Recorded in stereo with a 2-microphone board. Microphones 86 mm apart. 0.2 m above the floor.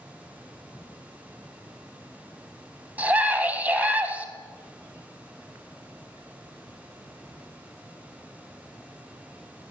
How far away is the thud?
No thud in this recording.